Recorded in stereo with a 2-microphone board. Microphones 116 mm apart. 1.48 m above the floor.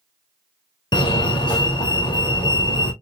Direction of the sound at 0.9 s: 40° left (ahead or behind).